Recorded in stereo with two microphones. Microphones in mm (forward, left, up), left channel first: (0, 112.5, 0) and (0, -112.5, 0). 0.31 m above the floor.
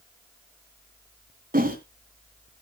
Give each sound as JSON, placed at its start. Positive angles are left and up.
{"t": 1.5, "sound": "a whoosh", "side_deg": -40, "distance_m": 2.5}